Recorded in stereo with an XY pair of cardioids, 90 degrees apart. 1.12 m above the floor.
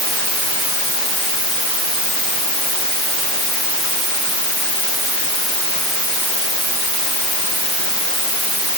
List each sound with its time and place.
Only background noise.